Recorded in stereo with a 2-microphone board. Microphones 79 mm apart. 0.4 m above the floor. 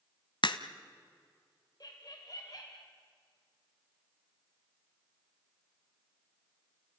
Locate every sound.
0.4 s a crack: 75° left (ahead or behind), 0.9 m
1.8 s laughter: 50° left (ahead or behind), 1.4 m